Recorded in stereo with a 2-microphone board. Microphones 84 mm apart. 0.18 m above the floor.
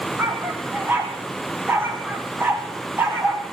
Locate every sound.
0.2 s a dog barking: 25° right (ahead or behind), 3.5 m